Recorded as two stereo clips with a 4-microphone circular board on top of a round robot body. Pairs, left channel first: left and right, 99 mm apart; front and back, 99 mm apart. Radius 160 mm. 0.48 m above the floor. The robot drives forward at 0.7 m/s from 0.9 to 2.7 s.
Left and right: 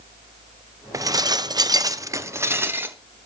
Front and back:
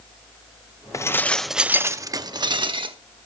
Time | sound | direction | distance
0.9 | dishes clattering | 45° right | 0.8 m